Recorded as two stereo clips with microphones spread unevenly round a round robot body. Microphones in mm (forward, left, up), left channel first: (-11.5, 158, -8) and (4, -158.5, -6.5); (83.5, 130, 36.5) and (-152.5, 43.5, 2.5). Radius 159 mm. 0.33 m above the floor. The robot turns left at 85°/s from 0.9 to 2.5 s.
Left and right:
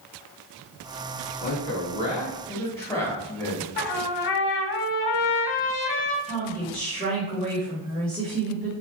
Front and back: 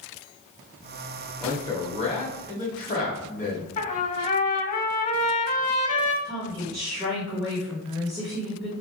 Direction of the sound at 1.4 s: 120° left.